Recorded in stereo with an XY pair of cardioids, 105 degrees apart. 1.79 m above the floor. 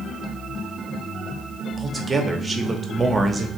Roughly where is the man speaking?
Ahead right.